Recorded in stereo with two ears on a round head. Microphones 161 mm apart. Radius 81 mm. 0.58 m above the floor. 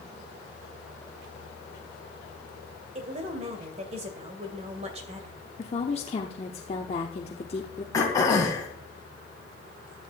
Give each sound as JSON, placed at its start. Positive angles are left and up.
{"t": 3.0, "sound": "a woman speaking", "side_deg": -35, "distance_m": 2.0}
{"t": 5.6, "sound": "a woman speaking", "side_deg": 35, "distance_m": 1.0}
{"t": 7.9, "sound": "throat clearing", "side_deg": 20, "distance_m": 3.0}